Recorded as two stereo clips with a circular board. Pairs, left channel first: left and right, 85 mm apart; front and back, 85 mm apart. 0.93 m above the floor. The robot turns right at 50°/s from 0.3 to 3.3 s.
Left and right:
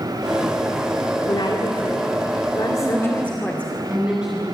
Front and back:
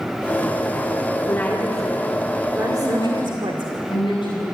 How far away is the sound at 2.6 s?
About 8.5 m.